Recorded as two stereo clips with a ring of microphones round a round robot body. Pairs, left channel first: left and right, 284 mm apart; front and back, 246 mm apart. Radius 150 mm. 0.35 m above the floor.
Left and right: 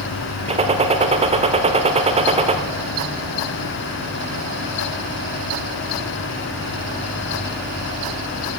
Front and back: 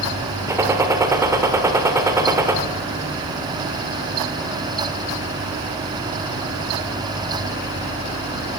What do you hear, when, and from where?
0.5 s a gunshot: 120° right, 1.1 m